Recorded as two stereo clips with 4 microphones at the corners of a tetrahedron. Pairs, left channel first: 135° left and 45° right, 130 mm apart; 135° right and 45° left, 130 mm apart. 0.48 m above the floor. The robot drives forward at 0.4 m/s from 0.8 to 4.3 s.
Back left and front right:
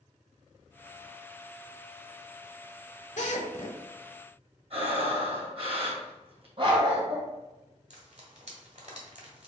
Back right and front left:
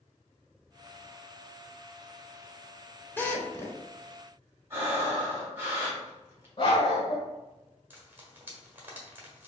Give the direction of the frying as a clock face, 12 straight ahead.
1 o'clock.